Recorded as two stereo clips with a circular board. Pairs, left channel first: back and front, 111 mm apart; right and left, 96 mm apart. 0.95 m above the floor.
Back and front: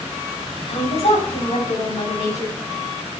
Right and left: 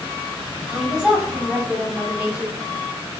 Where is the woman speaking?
175° left, 6.5 m; by 2.6 s 165° left, 7 m.